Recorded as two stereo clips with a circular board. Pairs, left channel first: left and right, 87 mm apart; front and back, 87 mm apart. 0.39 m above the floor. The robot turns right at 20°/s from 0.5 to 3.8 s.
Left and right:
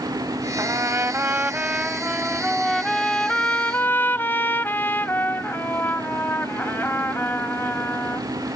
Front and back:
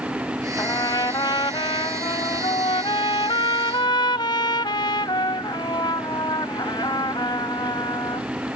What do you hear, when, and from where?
0.6 s a trumpet: 40° right; by 8.3 s 25° left